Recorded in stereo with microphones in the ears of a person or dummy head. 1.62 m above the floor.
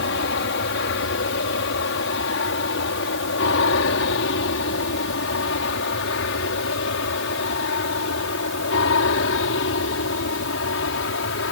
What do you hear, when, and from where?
0.0 s an aircraft: 60° left (ahead or behind); by 11.5 s 65° left (ahead or behind)